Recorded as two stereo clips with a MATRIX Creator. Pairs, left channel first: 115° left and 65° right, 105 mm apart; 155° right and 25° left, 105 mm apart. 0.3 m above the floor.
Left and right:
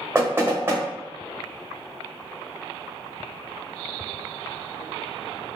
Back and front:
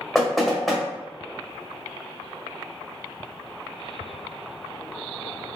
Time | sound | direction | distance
0.1 | knocking | 70° right | 0.7 m